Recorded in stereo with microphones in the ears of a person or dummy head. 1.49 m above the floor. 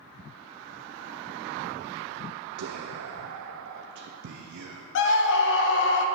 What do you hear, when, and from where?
2.6 s whispering: 60° right (ahead or behind), 0.5 m
5.0 s a scream: 65° left (ahead or behind), 0.9 m